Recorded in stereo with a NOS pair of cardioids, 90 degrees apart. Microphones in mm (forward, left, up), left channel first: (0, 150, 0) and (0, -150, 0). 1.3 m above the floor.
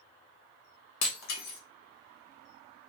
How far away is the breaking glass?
About 1.2 m.